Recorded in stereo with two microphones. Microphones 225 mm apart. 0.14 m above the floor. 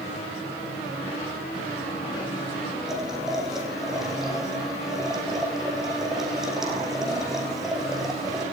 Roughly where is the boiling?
Centre.